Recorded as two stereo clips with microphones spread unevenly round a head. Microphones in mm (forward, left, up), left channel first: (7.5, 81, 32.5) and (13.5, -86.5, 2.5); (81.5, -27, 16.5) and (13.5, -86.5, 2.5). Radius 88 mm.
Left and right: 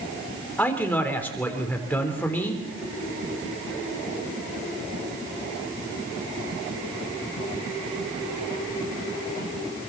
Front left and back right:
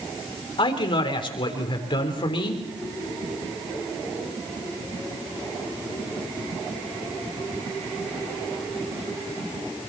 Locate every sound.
0.6 s a man speaking: 15° left, 3.5 m